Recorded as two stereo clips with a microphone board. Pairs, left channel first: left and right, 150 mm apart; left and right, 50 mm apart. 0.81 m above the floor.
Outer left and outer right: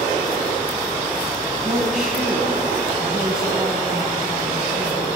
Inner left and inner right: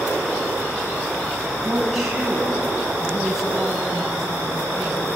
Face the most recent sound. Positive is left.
turn(degrees=-5)  # may be behind; listen again after turning